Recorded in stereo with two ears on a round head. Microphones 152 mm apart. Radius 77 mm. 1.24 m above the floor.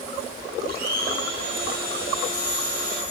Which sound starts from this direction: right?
A blender, at 0.7 s.